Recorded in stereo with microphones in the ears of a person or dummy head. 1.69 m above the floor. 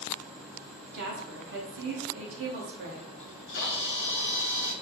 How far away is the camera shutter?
About 0.9 m.